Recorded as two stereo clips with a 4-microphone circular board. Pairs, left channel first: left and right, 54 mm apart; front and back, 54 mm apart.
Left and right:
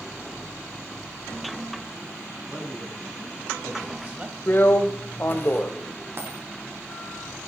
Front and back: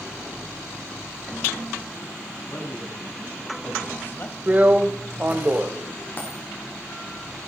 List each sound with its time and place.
2.4 s a man speaking: 10° right, 3 m; by 4.4 s 35° right, 1.6 m
4.5 s a drill: 130° left, 1.2 m
6.2 s a dropped coin: 50° right, 5.5 m